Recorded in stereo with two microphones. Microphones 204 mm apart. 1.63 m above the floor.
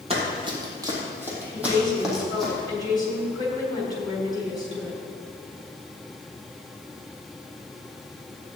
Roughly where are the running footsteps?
Right.